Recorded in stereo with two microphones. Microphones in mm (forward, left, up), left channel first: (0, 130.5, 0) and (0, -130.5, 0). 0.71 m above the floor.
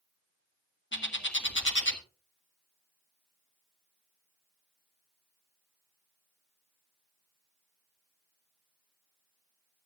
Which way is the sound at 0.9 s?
45° left (ahead or behind).